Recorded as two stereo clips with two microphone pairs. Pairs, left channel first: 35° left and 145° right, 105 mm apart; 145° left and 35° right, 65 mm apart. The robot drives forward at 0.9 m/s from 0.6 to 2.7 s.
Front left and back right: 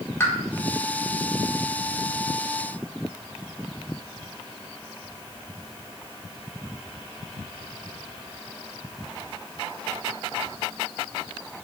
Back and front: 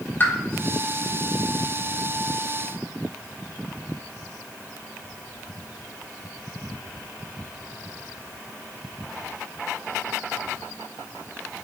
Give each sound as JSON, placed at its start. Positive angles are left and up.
{"t": 0.2, "sound": "a pop", "azimuth_deg": 95, "distance_m": 1.3}